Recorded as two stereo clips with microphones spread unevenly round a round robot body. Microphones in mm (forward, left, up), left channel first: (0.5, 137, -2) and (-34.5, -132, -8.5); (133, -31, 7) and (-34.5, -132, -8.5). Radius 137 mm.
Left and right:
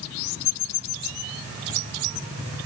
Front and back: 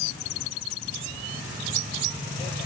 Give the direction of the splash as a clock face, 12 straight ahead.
No splash in this recording.